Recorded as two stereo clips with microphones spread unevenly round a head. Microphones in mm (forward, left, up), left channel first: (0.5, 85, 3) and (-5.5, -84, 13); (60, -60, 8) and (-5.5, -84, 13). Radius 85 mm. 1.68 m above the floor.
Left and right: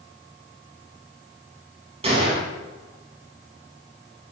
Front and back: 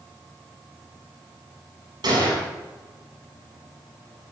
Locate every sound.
2.0 s a gunshot: 145° right, 7 m